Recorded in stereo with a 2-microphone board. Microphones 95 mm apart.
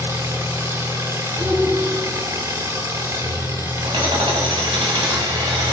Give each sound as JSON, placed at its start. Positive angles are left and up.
{"t": 0.0, "sound": "an engine running", "side_deg": -35, "distance_m": 1.6}
{"t": 1.4, "sound": "a shout", "side_deg": -10, "distance_m": 2.0}
{"t": 3.8, "sound": "hammering", "side_deg": -70, "distance_m": 1.9}